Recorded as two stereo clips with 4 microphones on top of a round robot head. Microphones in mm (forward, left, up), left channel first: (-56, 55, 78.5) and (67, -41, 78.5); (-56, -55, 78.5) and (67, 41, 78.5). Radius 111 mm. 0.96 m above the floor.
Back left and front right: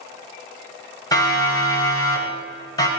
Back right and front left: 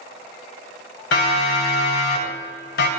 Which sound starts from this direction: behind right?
A siren, at 1.1 s.